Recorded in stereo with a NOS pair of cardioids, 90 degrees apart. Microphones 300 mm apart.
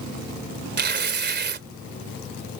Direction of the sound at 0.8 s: 35° right.